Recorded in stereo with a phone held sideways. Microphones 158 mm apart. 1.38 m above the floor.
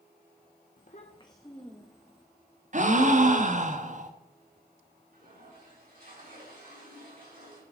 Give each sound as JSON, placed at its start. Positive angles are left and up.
{"t": 0.8, "sound": "a child speaking", "side_deg": 60, "distance_m": 0.9}
{"t": 2.7, "sound": "a gasp", "side_deg": -50, "distance_m": 1.1}
{"t": 5.1, "sound": "a toilet flushing", "side_deg": -65, "distance_m": 6.5}